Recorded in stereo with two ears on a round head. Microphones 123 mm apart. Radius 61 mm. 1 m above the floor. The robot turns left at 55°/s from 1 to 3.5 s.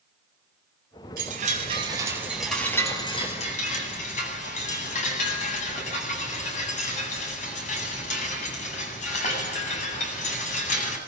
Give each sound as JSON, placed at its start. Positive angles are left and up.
{"t": 1.2, "sound": "a chime", "azimuth_deg": -110, "distance_m": 8.5}